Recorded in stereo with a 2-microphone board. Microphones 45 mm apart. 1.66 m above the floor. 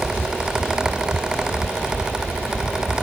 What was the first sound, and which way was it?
Only background noise.